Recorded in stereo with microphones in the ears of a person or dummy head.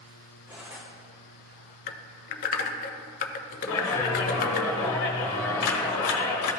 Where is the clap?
80° left, 1.4 m.